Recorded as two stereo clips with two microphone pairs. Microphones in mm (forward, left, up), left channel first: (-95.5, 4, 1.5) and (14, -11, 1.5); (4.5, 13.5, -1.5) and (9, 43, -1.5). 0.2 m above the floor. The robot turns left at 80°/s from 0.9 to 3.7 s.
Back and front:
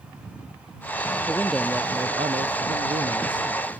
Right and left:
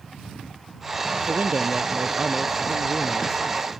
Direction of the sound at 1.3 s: 110° left.